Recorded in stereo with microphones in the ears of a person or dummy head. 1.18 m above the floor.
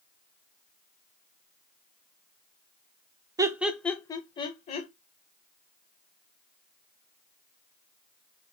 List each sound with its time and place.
3.4 s laughter: 15° right (ahead or behind), 0.5 m; by 4.9 s 40° left (ahead or behind), 1.0 m